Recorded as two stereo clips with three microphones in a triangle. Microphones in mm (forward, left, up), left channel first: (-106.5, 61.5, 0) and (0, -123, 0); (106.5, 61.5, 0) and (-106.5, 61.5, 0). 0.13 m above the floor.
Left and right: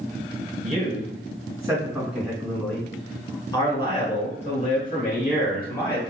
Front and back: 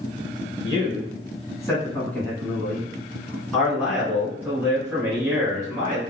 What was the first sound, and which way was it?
A man speaking, 55° right.